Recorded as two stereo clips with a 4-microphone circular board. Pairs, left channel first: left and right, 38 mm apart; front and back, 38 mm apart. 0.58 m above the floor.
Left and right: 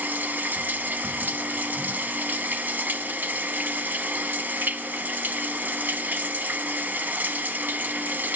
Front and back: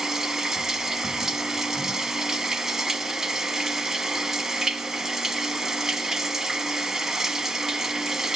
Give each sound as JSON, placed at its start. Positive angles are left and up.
{"t": 0.0, "sound": "running water", "azimuth_deg": -105, "distance_m": 0.7}